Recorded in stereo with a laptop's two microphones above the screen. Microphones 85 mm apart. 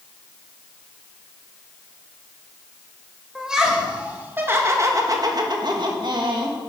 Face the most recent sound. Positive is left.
turn(degrees=-60)  # may be behind; listen again after turning